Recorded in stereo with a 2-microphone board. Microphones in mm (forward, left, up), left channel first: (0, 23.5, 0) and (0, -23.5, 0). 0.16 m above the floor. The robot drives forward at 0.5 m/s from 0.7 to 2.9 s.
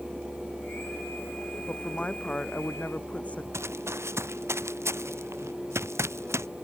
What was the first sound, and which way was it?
A woman speaking, 30° left (ahead or behind).